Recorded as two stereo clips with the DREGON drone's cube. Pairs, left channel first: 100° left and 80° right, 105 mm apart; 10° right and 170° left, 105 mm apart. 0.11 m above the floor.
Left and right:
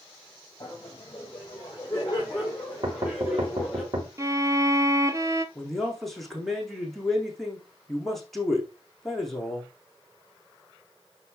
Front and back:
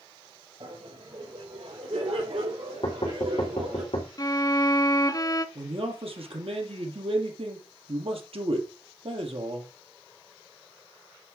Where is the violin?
40° right, 0.9 m.